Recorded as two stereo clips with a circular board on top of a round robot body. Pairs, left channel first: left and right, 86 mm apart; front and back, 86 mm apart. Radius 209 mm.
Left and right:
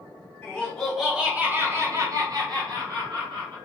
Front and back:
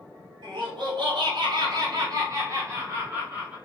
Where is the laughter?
165° left, 1.2 m; by 3.6 s 110° right, 2 m.